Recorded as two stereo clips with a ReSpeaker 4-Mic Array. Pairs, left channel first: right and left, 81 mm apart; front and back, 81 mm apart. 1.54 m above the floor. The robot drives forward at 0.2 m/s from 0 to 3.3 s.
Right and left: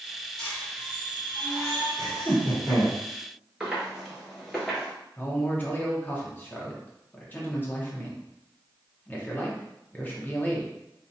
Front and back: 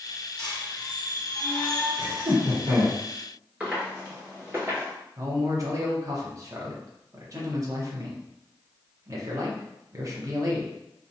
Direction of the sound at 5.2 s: 150° right.